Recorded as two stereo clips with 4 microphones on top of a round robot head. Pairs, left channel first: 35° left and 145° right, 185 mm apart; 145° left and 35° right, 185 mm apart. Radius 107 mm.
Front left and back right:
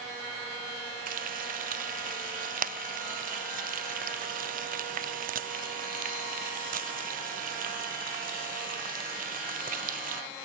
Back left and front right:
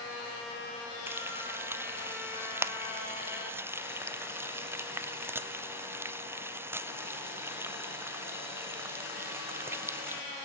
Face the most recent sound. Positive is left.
turn(degrees=-110)